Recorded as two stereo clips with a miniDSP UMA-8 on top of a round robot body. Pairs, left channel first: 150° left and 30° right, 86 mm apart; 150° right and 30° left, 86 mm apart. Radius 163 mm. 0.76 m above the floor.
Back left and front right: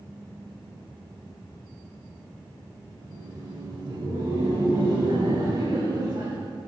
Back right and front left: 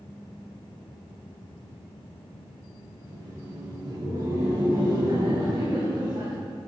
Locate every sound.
3.0 s laughter: 10° right, 5 m; by 6.3 s 5° left, 6.5 m